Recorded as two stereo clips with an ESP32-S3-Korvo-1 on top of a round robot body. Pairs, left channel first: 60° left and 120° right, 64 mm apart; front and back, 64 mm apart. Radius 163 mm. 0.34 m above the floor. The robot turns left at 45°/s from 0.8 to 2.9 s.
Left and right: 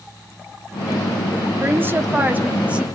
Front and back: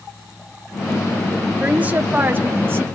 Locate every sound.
1.6 s a woman speaking: 125° right, 1.1 m; by 2.8 s straight behind, 1.1 m